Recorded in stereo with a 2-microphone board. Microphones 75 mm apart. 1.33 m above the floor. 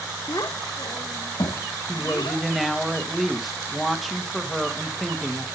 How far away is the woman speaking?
About 1.7 m.